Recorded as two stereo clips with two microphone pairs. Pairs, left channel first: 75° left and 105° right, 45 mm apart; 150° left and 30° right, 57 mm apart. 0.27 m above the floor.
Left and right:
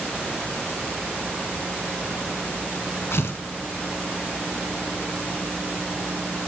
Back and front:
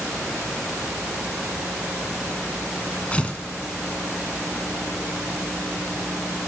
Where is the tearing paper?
80° left, 1.1 m.